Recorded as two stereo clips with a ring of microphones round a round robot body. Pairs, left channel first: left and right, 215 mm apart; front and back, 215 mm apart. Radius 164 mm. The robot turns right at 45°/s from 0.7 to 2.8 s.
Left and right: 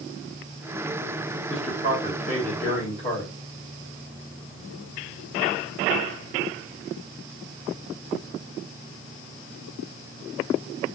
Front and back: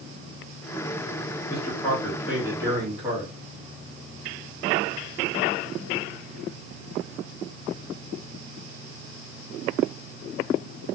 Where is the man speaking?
65° left, 1.6 m; by 3.3 s 125° left, 1.6 m.